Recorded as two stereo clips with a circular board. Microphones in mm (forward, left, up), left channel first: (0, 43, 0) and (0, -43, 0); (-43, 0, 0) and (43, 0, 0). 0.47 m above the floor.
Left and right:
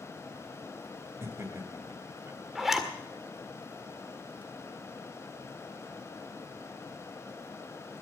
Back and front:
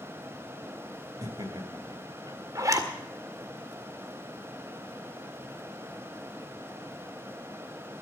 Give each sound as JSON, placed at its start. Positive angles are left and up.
{"t": 1.2, "sound": "laughter", "azimuth_deg": -35, "distance_m": 3.0}
{"t": 2.5, "sound": "a zipper", "azimuth_deg": -5, "distance_m": 1.7}